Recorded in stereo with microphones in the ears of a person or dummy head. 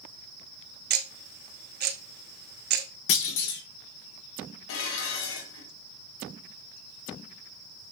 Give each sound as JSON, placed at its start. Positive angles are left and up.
{"t": 0.9, "sound": "ticking", "side_deg": -50, "distance_m": 0.9}
{"t": 3.1, "sound": "a clunk", "side_deg": 65, "distance_m": 1.6}
{"t": 4.7, "sound": "dishes clattering", "side_deg": 70, "distance_m": 1.8}